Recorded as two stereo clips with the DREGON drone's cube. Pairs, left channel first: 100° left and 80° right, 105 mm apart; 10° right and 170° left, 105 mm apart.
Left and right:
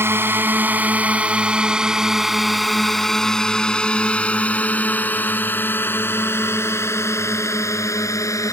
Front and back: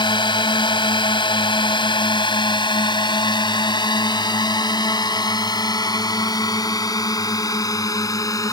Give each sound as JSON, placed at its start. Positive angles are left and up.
{"t": 0.0, "sound": "a drone", "azimuth_deg": -20}